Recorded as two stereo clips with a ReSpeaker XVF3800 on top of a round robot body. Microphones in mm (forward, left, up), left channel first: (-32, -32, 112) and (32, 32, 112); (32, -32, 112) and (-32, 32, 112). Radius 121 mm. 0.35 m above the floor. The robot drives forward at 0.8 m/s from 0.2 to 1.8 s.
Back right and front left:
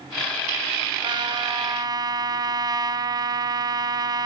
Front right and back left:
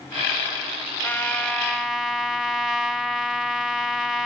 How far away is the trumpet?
About 1.2 m.